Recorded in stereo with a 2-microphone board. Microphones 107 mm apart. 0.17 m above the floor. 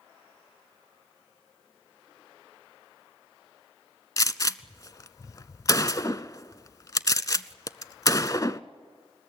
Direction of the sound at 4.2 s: 35° left (ahead or behind).